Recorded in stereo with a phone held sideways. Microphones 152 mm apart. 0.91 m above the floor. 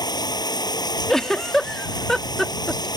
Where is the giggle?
5° left (ahead or behind).